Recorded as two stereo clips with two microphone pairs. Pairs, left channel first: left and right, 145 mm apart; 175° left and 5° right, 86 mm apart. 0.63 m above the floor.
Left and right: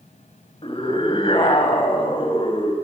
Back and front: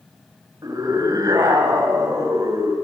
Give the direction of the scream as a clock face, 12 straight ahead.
11 o'clock.